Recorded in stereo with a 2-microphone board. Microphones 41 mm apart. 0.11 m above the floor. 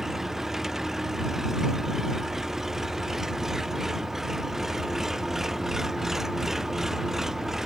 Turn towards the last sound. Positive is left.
turn(degrees=-10)  # may be behind; listen again after turning